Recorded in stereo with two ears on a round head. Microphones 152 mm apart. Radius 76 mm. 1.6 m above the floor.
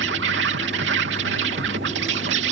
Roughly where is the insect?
Right.